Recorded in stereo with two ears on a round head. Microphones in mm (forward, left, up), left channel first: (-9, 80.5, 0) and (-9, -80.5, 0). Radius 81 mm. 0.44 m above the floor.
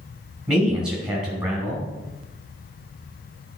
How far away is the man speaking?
About 3.5 m.